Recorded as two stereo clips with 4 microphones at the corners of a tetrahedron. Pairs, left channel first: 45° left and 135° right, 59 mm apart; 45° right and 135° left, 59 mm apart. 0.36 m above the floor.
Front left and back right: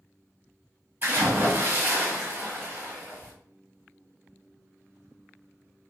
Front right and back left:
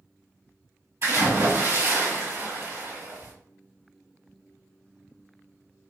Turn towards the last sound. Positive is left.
turn(degrees=180)